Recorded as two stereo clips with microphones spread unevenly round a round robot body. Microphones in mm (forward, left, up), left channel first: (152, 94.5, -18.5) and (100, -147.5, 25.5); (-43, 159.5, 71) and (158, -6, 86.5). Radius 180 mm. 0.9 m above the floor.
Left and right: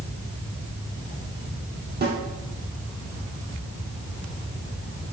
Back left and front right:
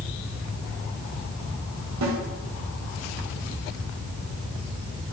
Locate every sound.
2.0 s a snare drum: 50° right, 3 m